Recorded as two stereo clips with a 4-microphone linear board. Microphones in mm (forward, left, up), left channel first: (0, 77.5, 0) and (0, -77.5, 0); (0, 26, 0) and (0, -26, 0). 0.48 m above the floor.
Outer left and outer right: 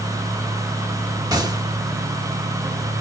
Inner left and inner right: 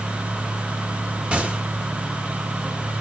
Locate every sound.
1.3 s a gunshot: 25° right (ahead or behind), 0.8 m